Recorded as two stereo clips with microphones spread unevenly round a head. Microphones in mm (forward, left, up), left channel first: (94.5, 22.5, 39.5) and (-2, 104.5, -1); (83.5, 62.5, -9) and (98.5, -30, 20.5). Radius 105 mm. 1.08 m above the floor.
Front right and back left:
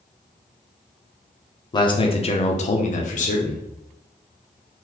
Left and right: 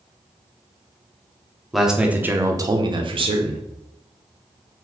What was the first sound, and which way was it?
A man speaking, 20° left.